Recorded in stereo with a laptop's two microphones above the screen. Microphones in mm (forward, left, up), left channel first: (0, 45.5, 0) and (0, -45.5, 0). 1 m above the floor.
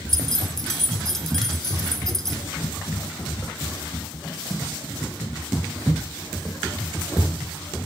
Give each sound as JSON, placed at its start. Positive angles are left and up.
{"t": 0.1, "sound": "keys jangling", "side_deg": 5, "distance_m": 2.5}